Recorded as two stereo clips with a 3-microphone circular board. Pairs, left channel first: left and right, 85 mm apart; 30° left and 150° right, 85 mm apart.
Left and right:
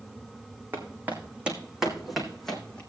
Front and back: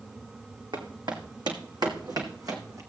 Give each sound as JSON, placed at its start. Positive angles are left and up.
{"t": 0.7, "sound": "footsteps", "azimuth_deg": -155, "distance_m": 3.0}